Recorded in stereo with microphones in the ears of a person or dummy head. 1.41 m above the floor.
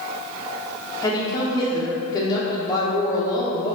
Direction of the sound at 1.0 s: 15° left (ahead or behind).